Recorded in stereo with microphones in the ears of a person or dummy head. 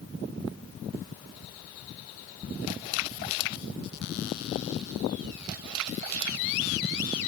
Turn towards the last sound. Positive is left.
No sound to turn to.